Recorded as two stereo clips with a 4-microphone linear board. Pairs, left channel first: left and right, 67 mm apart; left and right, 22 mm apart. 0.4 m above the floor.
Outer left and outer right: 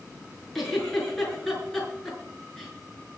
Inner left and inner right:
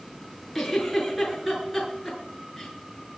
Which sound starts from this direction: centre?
A giggle, at 0.6 s.